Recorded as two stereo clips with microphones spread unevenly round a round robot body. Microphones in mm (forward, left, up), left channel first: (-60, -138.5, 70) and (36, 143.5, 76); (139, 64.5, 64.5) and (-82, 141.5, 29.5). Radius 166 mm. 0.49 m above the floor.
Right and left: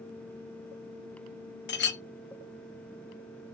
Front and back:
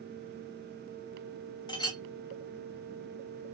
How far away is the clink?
About 0.7 m.